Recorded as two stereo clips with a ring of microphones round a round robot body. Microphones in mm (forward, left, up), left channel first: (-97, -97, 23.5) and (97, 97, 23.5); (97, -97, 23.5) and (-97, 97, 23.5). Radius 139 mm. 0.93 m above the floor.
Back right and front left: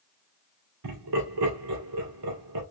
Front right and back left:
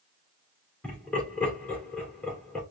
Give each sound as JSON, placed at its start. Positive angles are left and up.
{"t": 0.8, "sound": "laughter", "azimuth_deg": 40, "distance_m": 2.0}